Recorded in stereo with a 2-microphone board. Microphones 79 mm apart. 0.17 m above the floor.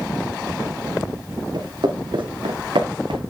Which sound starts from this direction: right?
Footsteps, at 1.5 s.